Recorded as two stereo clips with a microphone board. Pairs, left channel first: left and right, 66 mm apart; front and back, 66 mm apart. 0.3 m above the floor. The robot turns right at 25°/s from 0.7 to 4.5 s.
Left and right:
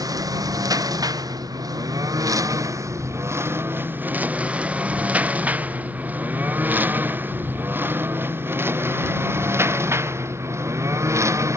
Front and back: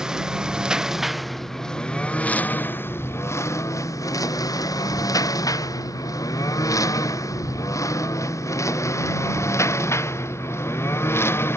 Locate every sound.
0.0 s a lawn mower: 100° right; by 11.6 s 50° right